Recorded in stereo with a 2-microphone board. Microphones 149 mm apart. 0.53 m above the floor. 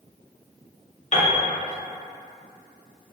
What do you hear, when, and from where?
1.1 s a piano: 50° left (ahead or behind), 0.6 m